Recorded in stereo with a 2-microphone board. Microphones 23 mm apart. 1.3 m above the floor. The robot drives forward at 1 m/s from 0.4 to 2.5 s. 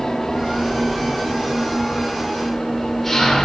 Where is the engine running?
25° left (ahead or behind), 4 m; by 3.5 s 15° left (ahead or behind), 6 m.